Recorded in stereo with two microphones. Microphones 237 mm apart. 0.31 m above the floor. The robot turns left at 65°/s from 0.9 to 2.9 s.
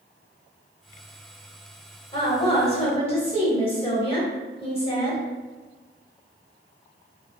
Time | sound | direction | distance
2.1 | a woman speaking | 20° left (ahead or behind) | 0.9 m